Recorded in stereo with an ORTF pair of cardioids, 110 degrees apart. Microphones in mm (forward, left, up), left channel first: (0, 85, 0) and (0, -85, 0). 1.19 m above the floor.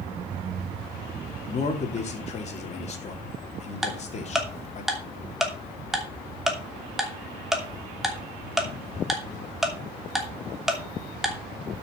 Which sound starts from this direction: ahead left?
A man speaking, at 1.4 s.